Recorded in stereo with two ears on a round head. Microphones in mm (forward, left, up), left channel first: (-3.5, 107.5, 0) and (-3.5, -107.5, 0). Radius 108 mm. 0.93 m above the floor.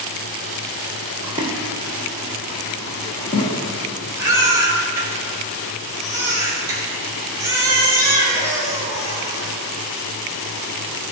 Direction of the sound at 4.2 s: 15° right (ahead or behind).